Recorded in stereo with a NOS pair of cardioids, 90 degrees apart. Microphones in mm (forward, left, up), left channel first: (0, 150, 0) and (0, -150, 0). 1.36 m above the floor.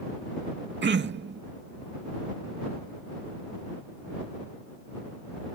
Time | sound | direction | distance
0.8 | throat clearing | 40° right | ?